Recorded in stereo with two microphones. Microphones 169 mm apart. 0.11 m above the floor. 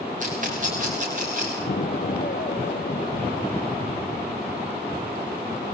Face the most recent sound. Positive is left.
turn(degrees=60)  # may be behind; listen again after turning